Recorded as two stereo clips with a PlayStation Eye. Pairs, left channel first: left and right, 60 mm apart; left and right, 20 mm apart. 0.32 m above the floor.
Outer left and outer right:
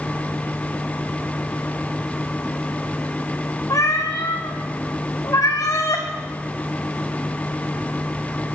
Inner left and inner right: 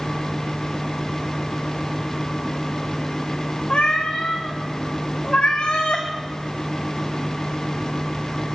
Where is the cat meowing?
55° left (ahead or behind), 2 m.